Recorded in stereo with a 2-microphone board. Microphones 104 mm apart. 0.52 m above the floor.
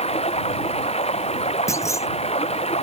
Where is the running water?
80° left.